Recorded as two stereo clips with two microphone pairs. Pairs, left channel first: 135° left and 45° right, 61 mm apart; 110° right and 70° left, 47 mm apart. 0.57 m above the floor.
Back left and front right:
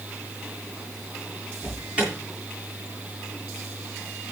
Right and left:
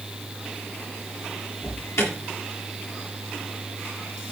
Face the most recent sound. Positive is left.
turn(degrees=-115)